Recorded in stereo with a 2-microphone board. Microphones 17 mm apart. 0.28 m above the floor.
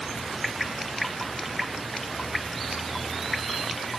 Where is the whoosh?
I don't hear a whoosh.